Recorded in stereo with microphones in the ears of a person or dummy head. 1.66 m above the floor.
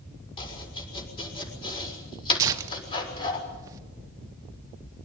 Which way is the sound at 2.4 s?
15° right (ahead or behind).